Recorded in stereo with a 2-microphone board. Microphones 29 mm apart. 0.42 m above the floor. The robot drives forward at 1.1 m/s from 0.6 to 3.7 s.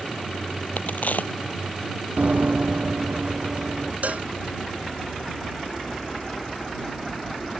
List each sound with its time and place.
0.8 s a crack: 60° left (ahead or behind); by 1.3 s 65° left (ahead or behind)
2.2 s running footsteps: 60° right (ahead or behind); by 3.9 s 55° right (ahead or behind)
4.0 s a cowbell: 60° right (ahead or behind)